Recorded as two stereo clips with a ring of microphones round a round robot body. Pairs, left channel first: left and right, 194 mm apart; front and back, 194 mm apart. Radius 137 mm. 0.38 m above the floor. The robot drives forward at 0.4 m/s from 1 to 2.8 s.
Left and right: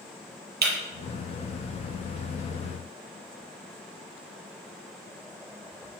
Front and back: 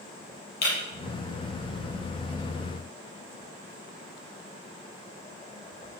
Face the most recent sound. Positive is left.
turn(degrees=-60)